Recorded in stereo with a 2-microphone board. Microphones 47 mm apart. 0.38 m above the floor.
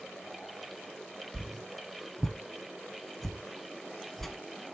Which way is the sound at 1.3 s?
Centre (ahead or behind).